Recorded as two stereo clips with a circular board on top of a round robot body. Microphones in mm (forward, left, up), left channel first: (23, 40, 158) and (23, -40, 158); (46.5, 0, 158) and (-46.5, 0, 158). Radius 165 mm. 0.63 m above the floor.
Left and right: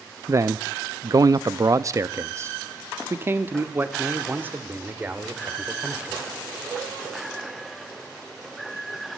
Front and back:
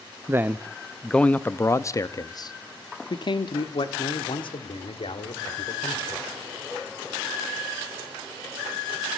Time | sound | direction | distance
0.3 | a man speaking | 125° right | 0.8 m